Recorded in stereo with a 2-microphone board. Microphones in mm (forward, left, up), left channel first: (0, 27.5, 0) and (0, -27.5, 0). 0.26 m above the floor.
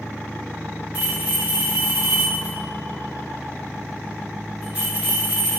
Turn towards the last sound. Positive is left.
turn(degrees=-25)  # may be behind; listen again after turning